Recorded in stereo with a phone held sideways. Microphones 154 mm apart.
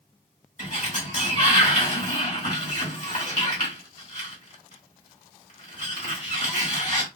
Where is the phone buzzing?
I don't hear a phone buzzing.